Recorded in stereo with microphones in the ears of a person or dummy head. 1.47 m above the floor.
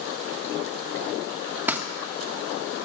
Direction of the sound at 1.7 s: 10° right (ahead or behind).